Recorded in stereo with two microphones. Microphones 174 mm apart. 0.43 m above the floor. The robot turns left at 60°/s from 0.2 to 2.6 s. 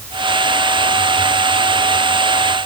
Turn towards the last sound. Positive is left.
No sound to turn to.